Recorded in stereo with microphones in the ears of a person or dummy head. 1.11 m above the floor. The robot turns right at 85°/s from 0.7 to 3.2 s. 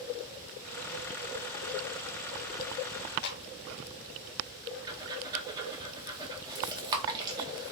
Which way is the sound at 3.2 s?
60° left (ahead or behind).